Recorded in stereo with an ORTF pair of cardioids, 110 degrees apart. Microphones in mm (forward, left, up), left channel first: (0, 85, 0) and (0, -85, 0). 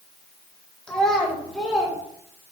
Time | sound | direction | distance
0.9 | a child speaking | 5° left | 1.4 m